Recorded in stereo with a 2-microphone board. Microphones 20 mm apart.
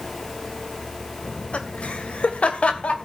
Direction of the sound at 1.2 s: 85° left.